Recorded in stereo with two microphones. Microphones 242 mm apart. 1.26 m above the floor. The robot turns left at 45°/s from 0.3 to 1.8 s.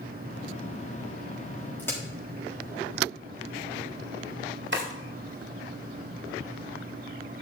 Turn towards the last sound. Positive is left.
turn(degrees=-50)  # may be behind; listen again after turning